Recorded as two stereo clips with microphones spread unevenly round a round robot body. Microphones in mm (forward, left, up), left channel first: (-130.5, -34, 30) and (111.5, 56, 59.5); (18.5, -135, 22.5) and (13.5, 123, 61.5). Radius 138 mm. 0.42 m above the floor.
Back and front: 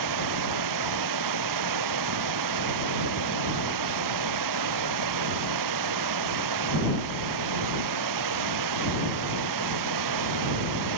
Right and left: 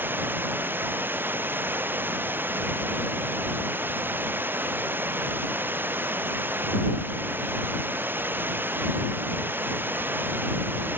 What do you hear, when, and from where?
0.0 s running water: 10° left